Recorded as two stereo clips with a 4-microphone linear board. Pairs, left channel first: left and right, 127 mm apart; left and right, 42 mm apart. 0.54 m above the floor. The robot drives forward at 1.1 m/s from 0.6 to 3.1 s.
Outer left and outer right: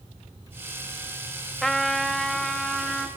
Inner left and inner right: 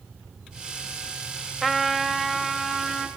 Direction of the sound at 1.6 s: Centre (ahead or behind).